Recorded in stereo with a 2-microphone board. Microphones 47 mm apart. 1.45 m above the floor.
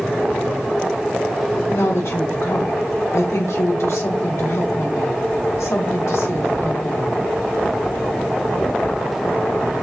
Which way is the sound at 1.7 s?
70° left (ahead or behind).